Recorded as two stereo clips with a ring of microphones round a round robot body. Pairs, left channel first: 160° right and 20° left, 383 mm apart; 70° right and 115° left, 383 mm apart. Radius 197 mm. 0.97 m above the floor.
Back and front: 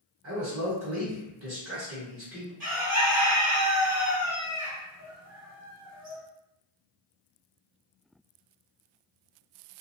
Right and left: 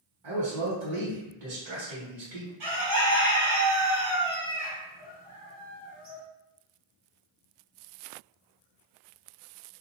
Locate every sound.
0.2 s a man speaking: 90° left, 1.5 m
2.6 s a bird: 90° left, 1.5 m